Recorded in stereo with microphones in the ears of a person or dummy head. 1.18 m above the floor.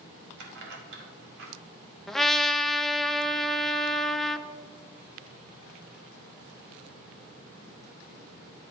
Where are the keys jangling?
75° right (ahead or behind), 2 m.